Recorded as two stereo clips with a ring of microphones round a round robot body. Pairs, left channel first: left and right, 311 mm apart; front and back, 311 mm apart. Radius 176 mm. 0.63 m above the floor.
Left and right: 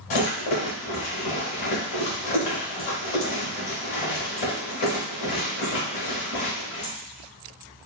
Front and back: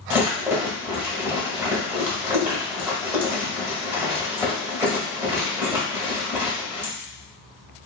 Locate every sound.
0.1 s a rattle: 95° left, 1.5 m